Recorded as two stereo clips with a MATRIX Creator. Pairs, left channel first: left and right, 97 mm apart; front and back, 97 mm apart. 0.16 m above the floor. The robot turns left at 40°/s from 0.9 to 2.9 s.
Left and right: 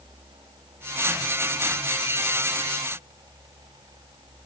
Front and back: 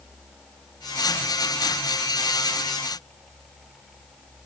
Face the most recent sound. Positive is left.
No sound to turn to.